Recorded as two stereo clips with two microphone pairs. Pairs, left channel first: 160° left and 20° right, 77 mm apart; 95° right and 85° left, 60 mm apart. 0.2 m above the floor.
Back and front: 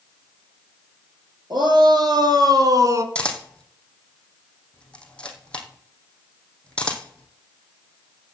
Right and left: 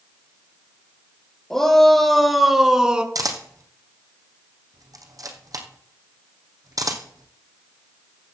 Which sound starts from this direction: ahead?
A shout, at 1.5 s.